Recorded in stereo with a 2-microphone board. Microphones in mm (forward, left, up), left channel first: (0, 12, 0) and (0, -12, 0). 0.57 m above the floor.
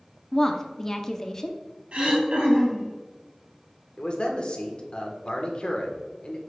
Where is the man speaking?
45° left (ahead or behind), 1.2 m.